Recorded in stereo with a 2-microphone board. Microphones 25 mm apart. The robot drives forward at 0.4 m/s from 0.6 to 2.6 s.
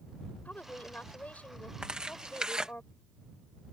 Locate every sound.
0.5 s a woman speaking: 80° left; by 2.8 s 70° left (ahead or behind)
1.8 s tearing paper: 35° right (ahead or behind)